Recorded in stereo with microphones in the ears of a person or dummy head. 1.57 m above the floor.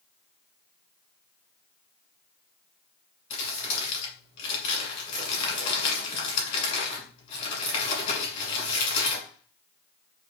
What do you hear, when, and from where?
3.3 s crumpling: 40° left (ahead or behind), 1.7 m